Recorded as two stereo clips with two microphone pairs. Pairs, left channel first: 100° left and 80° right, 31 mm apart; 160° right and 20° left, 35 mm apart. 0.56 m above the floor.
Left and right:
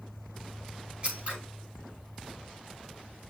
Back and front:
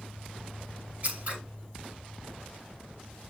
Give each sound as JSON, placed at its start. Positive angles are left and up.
{"t": 1.0, "sound": "scissors", "azimuth_deg": -30, "distance_m": 5.5}